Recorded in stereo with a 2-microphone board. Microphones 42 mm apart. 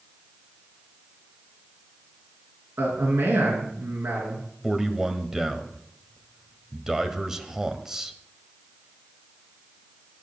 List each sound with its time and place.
2.8 s a man speaking: 70° right (ahead or behind), 4.5 m
4.6 s a man speaking: 10° right (ahead or behind), 1.3 m